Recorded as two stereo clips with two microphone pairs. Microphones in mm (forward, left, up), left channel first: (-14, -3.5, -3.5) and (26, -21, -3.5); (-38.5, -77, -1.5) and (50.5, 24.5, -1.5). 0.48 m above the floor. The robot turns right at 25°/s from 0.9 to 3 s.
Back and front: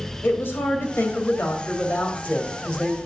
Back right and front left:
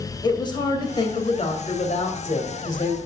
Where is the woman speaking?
175° left, 2.5 m; by 3.0 s 130° right, 2.5 m.